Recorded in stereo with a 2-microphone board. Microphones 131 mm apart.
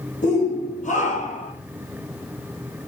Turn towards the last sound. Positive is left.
turn(degrees=75)  # may be behind; listen again after turning